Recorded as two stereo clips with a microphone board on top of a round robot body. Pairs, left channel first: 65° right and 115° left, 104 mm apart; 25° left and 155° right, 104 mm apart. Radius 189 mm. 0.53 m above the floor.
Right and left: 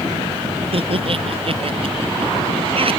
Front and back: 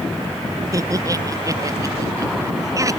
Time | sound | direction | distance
0.7 | laughter | 145° left | ?